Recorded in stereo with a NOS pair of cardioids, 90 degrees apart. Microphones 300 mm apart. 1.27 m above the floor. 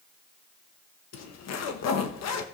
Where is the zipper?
65° left, 1.2 m.